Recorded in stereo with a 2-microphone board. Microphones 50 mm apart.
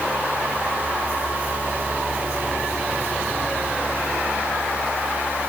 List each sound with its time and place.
Only background noise.